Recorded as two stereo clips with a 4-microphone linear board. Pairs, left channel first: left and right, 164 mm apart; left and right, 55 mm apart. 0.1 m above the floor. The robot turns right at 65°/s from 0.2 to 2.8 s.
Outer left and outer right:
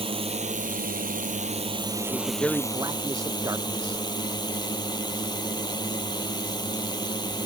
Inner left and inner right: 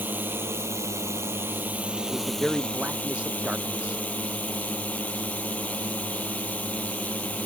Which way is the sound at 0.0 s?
140° right.